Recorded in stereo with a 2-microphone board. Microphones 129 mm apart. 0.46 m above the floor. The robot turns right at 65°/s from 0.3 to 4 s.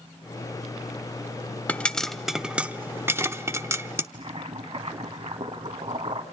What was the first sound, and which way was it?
A pop, 10° left (ahead or behind).